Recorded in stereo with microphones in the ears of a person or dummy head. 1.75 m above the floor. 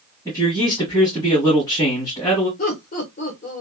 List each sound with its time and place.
0.2 s a man speaking: 15° left (ahead or behind), 1.6 m
2.6 s laughter: 45° left (ahead or behind), 1.1 m